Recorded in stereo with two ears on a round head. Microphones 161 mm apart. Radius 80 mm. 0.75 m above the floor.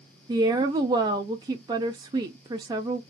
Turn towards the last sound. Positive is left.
turn(degrees=-20)  # may be behind; listen again after turning